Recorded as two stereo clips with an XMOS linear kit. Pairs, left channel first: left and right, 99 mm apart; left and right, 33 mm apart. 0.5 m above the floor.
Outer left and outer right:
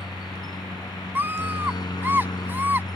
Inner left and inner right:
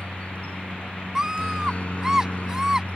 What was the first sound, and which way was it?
A helicopter, 40° left (ahead or behind).